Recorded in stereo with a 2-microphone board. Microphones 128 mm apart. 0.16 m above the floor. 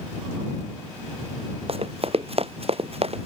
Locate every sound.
1.7 s running footsteps: 50° right (ahead or behind)